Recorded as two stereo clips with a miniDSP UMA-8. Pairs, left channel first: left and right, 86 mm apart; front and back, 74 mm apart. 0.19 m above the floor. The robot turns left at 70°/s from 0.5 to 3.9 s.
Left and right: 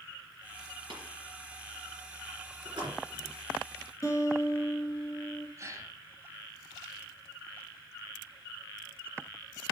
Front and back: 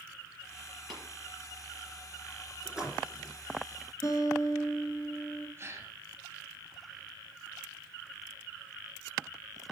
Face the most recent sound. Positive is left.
turn(degrees=-135)